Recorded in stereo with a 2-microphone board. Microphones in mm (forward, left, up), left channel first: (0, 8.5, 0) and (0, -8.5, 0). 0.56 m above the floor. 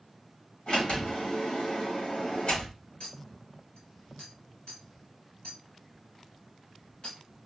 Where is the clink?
65° left (ahead or behind), 3 m.